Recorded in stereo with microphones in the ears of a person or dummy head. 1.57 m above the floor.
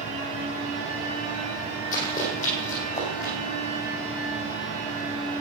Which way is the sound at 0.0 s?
40° left (ahead or behind).